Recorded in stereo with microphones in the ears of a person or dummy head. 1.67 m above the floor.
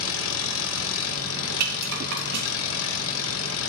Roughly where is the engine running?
Left.